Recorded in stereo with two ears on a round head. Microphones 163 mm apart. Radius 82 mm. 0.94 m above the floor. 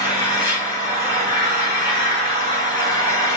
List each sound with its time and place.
0.0 s an engine running: 30° left (ahead or behind), 4 m